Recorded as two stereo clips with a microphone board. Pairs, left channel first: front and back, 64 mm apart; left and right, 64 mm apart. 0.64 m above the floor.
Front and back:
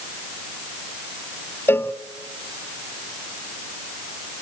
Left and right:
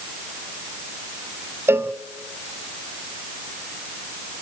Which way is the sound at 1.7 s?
45° right.